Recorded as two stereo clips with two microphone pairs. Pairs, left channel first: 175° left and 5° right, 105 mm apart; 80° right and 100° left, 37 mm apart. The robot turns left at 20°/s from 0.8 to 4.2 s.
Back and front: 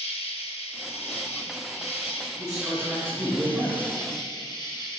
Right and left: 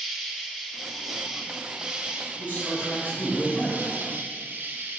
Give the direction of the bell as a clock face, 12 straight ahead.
No bell in this recording.